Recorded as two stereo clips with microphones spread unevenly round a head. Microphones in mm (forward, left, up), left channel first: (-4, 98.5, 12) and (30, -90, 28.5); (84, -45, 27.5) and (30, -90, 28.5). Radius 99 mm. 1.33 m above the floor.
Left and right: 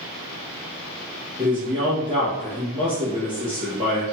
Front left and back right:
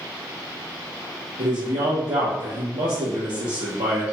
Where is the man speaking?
150° right, 0.9 m.